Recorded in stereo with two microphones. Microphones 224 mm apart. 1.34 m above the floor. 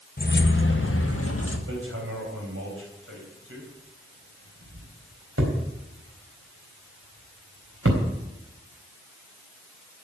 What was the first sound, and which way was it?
Keys jangling, 40° left (ahead or behind).